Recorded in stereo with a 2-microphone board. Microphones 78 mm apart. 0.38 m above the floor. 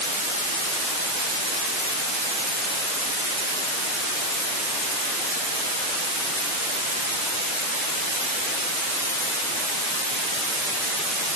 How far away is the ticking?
No ticking in this recording.